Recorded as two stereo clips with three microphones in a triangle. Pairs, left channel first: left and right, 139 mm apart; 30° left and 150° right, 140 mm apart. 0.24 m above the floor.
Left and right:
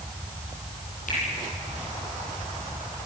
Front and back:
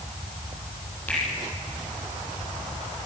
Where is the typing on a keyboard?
I don't hear typing on a keyboard.